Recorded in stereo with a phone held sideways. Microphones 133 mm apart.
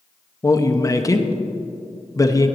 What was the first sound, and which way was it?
A man speaking, 25° left (ahead or behind).